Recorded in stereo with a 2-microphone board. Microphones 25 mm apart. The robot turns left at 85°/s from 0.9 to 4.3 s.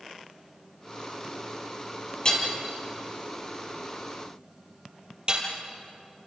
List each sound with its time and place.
2.2 s hammering: 30° left (ahead or behind), 5 m; by 5.5 s 35° right (ahead or behind), 5 m